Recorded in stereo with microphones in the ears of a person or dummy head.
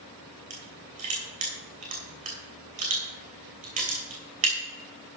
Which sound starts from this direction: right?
Crushing, at 0.5 s.